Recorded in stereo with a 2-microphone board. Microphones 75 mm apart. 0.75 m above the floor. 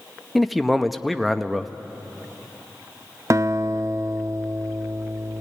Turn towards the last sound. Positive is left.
turn(degrees=-40)  # may be behind; listen again after turning